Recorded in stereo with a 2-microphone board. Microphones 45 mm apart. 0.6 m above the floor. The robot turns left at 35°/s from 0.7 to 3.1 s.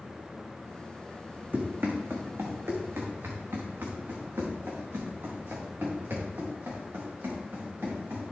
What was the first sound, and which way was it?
Running footsteps, 50° right (ahead or behind).